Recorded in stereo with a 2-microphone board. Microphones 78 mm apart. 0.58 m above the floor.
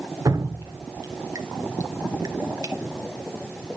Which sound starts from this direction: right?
Dripping, at 0.2 s.